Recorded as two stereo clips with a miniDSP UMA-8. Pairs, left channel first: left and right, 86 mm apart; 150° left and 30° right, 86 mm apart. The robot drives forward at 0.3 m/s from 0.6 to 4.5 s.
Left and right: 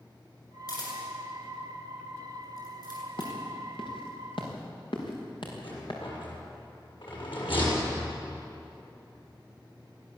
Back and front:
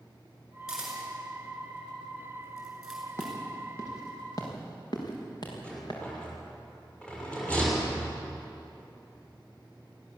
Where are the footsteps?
90° left, 5 m; by 6.0 s 115° left, 6.5 m.